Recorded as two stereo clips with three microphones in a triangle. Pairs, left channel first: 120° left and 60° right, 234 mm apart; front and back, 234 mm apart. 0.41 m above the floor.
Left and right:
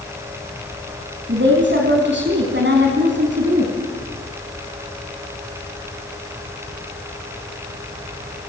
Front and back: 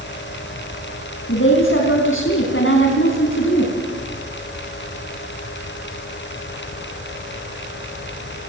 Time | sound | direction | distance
1.3 | a woman speaking | 25° right | 4 m